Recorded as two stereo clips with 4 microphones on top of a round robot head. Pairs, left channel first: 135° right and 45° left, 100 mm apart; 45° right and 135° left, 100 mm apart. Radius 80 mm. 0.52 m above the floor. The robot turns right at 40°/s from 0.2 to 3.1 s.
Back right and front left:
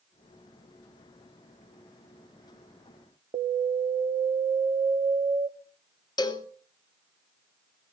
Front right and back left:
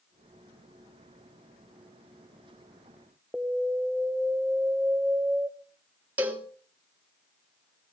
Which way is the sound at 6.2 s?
155° right.